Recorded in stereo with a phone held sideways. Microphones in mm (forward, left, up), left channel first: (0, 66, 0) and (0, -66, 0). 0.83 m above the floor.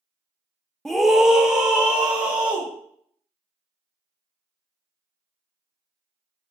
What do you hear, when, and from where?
0.8 s a scream: 5° left (ahead or behind), 0.7 m; by 2.7 s 10° right (ahead or behind), 3 m